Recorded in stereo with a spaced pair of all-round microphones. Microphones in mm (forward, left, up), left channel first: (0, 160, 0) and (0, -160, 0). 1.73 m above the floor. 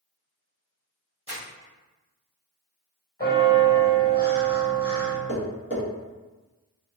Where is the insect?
I don't hear an insect.